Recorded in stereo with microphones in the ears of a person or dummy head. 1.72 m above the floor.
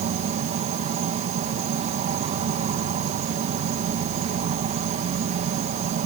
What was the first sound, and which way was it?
An insect, 45° right (ahead or behind).